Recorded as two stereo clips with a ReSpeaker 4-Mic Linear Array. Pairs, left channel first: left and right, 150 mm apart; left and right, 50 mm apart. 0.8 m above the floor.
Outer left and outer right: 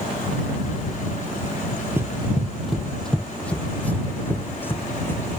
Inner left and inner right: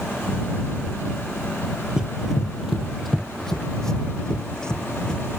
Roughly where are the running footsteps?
Centre.